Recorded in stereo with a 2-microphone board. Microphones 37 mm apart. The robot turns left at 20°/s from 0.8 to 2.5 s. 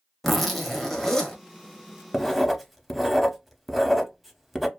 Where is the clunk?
No clunk in this recording.